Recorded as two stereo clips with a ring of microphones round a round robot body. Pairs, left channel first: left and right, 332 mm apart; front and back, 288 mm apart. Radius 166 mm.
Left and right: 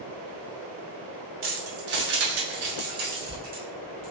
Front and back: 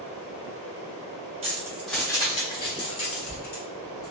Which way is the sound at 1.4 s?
125° right.